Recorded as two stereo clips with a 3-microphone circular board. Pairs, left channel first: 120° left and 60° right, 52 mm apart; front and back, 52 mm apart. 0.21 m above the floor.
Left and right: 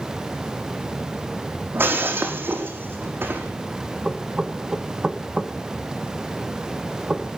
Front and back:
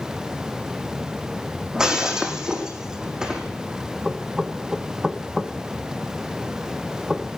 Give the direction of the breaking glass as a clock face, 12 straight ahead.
3 o'clock.